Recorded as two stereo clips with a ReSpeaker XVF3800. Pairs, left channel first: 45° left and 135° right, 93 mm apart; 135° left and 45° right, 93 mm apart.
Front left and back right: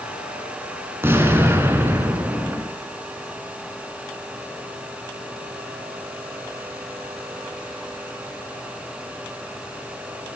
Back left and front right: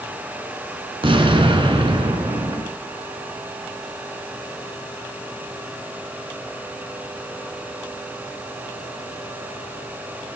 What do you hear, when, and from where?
1.0 s an explosion: 70° right, 2 m